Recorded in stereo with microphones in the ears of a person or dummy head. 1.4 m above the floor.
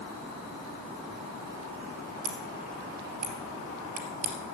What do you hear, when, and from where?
2.2 s scissors: 45° right (ahead or behind), 2.5 m